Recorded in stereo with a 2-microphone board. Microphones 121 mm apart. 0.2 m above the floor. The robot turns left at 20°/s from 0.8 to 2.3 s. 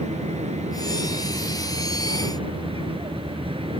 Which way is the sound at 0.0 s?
65° right (ahead or behind).